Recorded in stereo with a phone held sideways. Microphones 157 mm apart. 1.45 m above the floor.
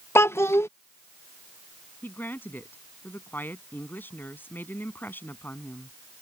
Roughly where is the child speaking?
Centre.